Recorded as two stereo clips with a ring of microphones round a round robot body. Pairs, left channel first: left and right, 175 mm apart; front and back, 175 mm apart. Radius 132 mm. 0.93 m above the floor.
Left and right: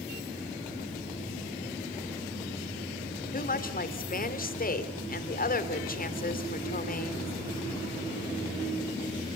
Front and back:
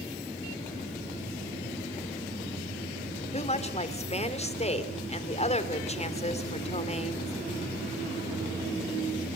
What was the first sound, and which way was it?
A woman speaking, 55° left.